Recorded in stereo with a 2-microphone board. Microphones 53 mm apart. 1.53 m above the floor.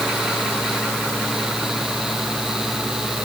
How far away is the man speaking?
No man speaking in this recording.